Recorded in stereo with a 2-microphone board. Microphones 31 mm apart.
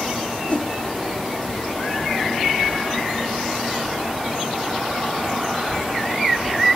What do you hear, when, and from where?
0.5 s a whoosh: 45° left (ahead or behind), 1.2 m